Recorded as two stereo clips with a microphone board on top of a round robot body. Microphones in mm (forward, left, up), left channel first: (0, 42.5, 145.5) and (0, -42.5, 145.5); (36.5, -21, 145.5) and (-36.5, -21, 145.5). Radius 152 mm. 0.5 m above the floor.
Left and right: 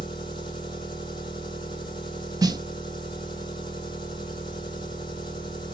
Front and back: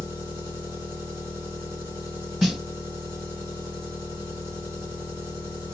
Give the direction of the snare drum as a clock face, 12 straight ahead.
3 o'clock.